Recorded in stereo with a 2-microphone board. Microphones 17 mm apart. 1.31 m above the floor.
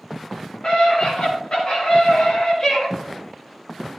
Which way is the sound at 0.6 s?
55° left (ahead or behind).